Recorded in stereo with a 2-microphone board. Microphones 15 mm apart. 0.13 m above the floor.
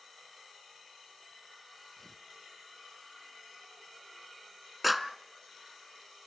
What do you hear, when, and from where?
2.0 s tearing paper: 20° left (ahead or behind), 1.2 m
4.8 s a clap: 5° right (ahead or behind), 0.9 m